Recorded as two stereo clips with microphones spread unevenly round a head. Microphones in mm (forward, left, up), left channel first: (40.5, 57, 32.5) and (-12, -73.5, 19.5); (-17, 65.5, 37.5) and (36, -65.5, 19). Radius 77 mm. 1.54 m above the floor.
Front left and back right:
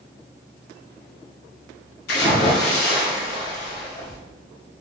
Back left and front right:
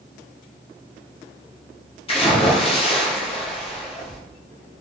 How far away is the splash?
About 0.7 m.